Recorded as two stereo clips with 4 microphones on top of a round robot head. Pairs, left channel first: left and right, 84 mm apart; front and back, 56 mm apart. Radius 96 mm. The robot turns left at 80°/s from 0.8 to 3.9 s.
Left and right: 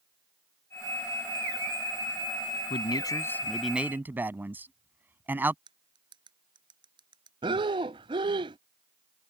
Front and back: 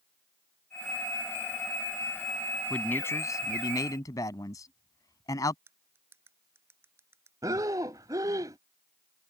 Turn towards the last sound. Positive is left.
turn(degrees=-130)